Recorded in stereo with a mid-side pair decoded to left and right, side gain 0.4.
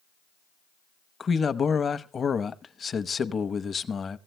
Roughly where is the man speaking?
Ahead left.